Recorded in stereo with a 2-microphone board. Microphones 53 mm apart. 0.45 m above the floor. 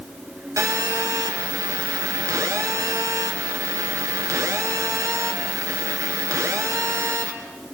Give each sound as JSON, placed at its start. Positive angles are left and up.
{"t": 0.6, "sound": "a phone buzzing", "side_deg": -70, "distance_m": 3.0}